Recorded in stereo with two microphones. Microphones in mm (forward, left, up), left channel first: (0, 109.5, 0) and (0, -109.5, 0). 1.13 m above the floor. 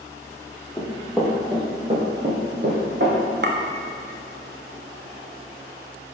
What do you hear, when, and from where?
0.8 s running footsteps: 10° left (ahead or behind), 1.7 m; by 3.2 s 55° right (ahead or behind), 3 m
3.4 s a clink: 50° right (ahead or behind), 0.6 m